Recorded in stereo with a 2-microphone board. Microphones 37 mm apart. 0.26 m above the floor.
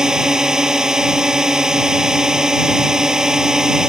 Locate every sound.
0.0 s a drone: 20° right (ahead or behind)